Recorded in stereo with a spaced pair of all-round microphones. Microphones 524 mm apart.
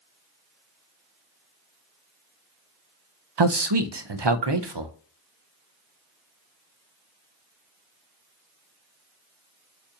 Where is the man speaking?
55° right (ahead or behind), 0.5 m.